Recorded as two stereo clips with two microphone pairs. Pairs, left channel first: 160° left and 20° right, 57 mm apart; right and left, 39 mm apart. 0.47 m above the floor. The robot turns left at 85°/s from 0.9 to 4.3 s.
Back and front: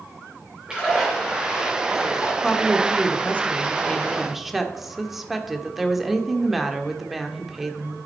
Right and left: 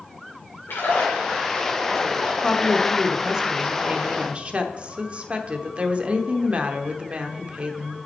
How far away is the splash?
About 5 m.